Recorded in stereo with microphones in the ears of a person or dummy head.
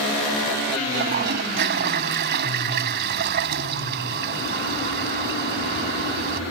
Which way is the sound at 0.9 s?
60° right (ahead or behind).